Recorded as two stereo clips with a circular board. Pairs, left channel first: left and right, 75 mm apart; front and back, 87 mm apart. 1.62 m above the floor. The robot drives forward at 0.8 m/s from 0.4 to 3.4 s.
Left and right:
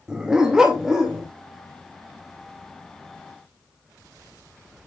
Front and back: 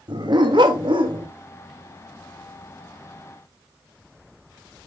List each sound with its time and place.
0.1 s a dog barking: 170° right, 2 m